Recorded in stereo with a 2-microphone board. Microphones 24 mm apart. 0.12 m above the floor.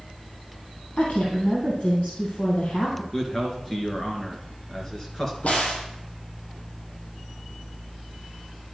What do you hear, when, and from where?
1.0 s a woman speaking: 65° left (ahead or behind), 3 m
3.1 s a man speaking: 20° left (ahead or behind), 2 m
5.4 s a crack: 65° left (ahead or behind), 2 m